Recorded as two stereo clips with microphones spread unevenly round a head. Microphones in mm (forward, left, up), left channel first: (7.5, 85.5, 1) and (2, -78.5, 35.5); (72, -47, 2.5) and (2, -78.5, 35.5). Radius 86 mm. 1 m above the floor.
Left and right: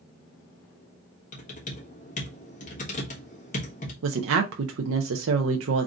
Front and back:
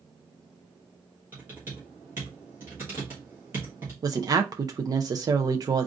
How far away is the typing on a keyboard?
About 1.3 m.